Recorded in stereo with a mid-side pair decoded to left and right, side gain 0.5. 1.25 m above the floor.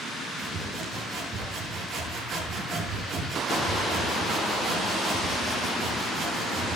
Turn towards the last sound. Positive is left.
turn(degrees=-60)